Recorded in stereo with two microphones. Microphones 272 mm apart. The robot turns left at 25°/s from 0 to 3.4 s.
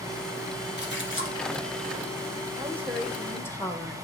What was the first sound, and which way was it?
A splash, 40° left (ahead or behind).